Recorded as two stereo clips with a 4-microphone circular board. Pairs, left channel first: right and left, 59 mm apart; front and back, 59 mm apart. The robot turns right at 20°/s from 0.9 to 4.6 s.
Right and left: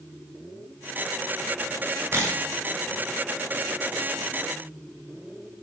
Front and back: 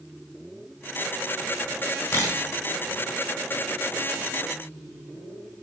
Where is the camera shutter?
40° left, 6 m; by 2.4 s 45° left, 6 m.